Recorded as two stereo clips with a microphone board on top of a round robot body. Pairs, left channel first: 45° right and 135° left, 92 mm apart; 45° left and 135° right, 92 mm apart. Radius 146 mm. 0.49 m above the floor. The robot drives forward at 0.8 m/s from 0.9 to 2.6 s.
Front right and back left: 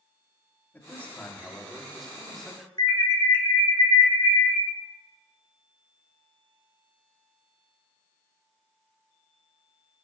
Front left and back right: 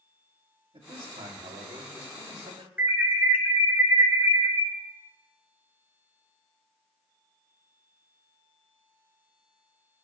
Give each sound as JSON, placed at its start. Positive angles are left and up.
{"t": 0.7, "sound": "a man speaking", "azimuth_deg": -115, "distance_m": 2.5}
{"t": 2.8, "sound": "an alarm", "azimuth_deg": -65, "distance_m": 3.0}